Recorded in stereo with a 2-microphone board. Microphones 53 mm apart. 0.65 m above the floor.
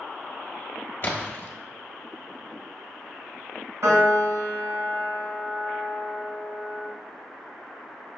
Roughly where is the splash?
Left.